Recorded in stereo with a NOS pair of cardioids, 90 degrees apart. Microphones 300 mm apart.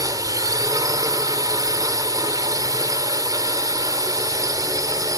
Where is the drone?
10° right.